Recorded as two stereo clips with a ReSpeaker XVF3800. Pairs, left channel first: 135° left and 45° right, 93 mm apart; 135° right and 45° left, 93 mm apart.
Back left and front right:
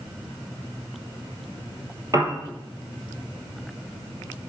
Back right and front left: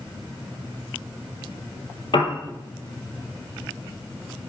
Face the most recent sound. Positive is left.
turn(degrees=-100)